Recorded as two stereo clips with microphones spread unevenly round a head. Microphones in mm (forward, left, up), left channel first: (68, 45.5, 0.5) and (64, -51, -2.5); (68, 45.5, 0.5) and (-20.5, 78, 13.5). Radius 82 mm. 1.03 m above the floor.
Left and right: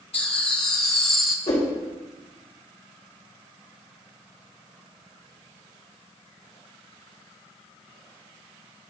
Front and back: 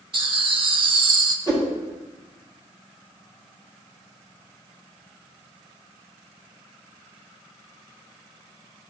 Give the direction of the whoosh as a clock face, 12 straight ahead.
8 o'clock.